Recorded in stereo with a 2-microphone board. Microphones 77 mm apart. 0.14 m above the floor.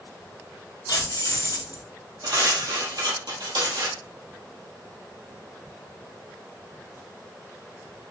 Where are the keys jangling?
65° left (ahead or behind), 2.0 m.